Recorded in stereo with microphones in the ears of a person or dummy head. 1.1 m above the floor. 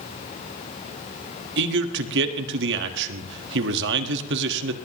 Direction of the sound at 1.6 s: 70° right (ahead or behind).